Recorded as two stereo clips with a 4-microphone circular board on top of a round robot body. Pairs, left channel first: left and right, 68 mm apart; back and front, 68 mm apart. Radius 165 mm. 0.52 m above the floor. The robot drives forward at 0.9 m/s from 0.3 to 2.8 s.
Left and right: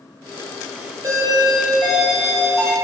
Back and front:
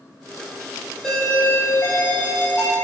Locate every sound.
1.0 s a doorbell: 100° right, 1.5 m; by 2.8 s 150° right, 2.5 m